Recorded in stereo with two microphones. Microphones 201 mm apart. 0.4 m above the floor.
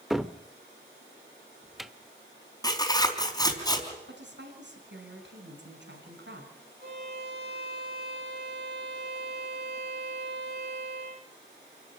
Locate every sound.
0.1 s a cupboard door: centre (ahead or behind), 0.8 m
2.6 s tearing paper: 20° left (ahead or behind), 4 m
4.1 s a woman speaking: 65° right (ahead or behind), 5 m
6.8 s a violin: 50° right (ahead or behind), 9.5 m